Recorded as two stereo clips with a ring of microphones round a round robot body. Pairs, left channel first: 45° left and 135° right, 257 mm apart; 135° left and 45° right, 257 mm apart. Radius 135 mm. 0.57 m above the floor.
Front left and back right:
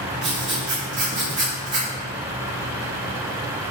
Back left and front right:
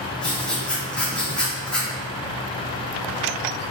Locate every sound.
0.2 s writing: 140° right, 1.4 m